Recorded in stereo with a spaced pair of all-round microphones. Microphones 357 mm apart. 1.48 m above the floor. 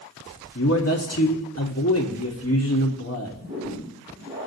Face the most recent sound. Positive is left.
turn(degrees=-35)  # may be behind; listen again after turning